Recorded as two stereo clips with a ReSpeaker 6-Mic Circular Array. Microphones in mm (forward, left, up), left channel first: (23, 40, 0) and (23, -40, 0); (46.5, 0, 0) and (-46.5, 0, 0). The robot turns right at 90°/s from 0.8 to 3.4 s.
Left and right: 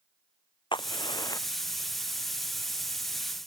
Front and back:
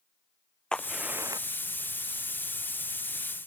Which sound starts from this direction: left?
A crack, at 0.7 s.